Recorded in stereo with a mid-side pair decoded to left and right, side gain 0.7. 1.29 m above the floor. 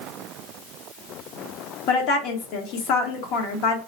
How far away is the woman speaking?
About 0.9 m.